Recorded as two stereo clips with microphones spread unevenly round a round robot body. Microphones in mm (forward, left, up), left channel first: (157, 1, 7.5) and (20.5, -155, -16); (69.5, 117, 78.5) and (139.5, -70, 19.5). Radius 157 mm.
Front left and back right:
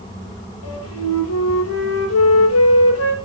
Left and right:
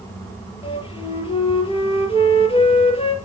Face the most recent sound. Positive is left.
turn(degrees=45)